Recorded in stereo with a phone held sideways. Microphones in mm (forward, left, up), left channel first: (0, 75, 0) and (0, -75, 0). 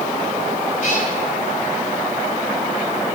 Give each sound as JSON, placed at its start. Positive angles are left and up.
{"t": 0.8, "sound": "a cat meowing", "side_deg": 55, "distance_m": 2.5}